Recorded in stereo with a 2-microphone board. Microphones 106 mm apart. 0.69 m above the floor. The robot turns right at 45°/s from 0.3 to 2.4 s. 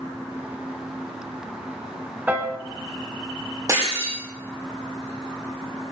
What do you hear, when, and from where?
2.3 s a piano: 15° right (ahead or behind), 1.1 m; by 2.6 s 10° right (ahead or behind), 1.1 m
3.7 s breaking glass: 35° right (ahead or behind), 9 m